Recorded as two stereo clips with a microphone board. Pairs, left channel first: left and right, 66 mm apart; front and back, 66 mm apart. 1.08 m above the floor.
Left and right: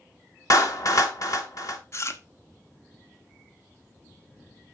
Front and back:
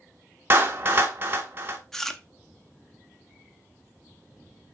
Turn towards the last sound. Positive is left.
turn(degrees=80)